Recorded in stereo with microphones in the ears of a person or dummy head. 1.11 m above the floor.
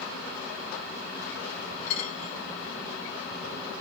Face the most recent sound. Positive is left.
turn(degrees=60)  # may be behind; listen again after turning